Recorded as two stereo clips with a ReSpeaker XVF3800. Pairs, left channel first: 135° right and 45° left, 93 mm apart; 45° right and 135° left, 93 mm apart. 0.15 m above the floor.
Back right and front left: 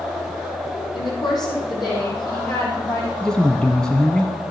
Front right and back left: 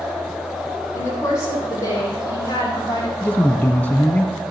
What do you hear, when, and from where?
0.9 s a woman speaking: 100° right, 6 m; by 3.1 s 90° right, 7 m
3.2 s a man speaking: 70° right, 1.1 m